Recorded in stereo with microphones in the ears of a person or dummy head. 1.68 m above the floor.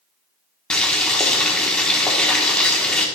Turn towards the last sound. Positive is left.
turn(degrees=5)  # may be behind; listen again after turning